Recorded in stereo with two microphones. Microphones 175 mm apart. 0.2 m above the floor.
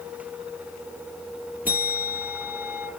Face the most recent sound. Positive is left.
turn(degrees=-10)  # may be behind; listen again after turning